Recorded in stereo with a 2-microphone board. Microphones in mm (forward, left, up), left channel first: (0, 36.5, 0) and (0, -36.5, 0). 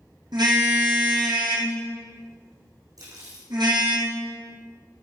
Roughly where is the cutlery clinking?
Right.